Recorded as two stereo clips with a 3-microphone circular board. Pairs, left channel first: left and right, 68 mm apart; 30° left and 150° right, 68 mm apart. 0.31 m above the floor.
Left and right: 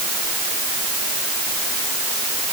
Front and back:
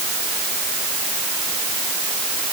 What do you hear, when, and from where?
Only background noise.